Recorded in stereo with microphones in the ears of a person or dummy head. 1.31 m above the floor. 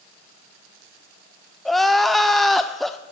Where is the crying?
Centre (ahead or behind), 0.5 m.